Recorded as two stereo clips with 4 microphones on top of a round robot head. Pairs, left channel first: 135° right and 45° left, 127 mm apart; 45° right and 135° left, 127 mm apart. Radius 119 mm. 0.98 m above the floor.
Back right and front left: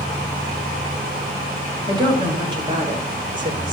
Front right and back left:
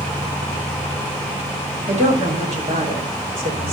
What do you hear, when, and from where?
1.9 s a woman speaking: 100° left, 5.5 m; by 3.7 s 95° left, 4.5 m